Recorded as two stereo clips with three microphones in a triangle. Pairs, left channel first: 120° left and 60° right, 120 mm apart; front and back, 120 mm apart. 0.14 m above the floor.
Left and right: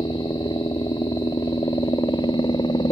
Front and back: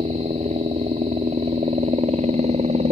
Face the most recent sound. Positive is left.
turn(degrees=170)